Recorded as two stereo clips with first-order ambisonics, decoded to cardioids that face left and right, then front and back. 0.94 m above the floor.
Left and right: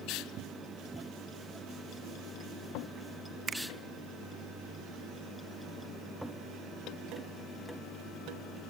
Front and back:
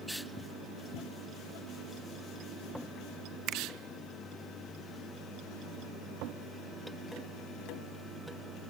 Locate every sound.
3.5 s a finger snap: 150° right, 0.5 m